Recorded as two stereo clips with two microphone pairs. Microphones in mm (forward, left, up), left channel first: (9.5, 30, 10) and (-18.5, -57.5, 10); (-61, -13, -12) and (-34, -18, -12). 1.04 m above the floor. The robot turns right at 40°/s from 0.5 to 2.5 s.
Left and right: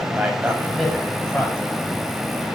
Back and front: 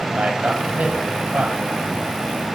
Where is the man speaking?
35° right, 6 m; by 1.6 s 10° left, 6 m.